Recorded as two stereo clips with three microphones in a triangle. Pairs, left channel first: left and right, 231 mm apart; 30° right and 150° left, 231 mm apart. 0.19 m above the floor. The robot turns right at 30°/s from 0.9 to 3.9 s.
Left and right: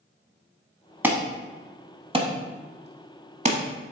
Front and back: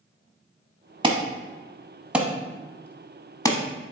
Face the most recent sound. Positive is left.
turn(degrees=-75)